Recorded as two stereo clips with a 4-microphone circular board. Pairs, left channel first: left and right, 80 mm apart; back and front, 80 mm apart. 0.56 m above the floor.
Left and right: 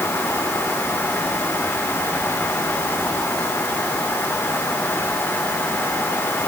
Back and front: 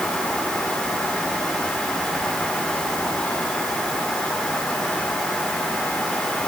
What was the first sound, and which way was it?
Only background noise.